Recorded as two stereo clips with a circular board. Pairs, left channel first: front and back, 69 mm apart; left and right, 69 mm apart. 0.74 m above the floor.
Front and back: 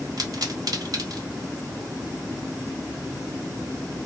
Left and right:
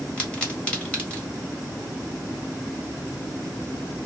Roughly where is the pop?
Behind.